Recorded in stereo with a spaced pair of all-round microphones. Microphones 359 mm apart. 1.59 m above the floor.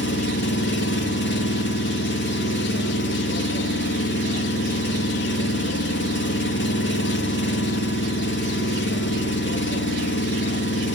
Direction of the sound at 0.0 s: 30° left (ahead or behind).